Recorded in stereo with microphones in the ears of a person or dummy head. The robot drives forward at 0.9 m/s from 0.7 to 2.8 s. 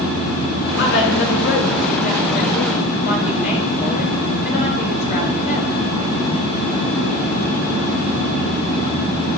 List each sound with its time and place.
0.8 s a woman speaking: 65° left (ahead or behind), 4.5 m; by 5.7 s 50° left (ahead or behind), 5 m